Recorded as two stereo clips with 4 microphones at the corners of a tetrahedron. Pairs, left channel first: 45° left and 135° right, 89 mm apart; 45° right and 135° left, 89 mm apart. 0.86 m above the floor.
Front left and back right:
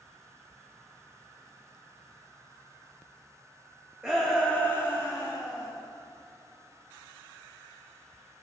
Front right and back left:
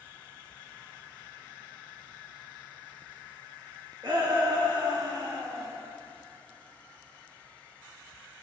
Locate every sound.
4.0 s a shout: 145° left, 1.3 m; by 5.7 s 90° left, 2.5 m